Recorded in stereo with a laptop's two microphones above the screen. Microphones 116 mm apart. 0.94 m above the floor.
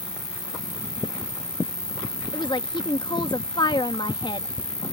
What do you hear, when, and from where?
0.0 s an insect: 35° left (ahead or behind)
2.3 s a woman speaking: 40° left (ahead or behind)